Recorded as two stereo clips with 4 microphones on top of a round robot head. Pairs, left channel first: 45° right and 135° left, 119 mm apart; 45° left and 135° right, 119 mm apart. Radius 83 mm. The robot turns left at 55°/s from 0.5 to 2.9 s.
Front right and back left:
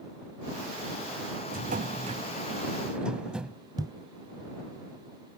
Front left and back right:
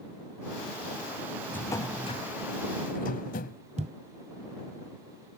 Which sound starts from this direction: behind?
A thud, at 3.8 s.